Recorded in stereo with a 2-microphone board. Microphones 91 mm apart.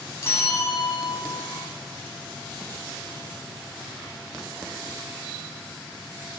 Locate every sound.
0.2 s a bell: 30° left (ahead or behind), 1.8 m